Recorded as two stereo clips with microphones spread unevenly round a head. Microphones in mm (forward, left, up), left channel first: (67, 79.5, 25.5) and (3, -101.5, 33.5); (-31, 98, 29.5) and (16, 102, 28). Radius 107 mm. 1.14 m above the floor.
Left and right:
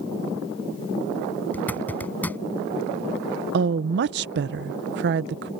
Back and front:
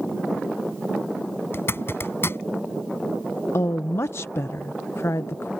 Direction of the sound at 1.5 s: 155° left.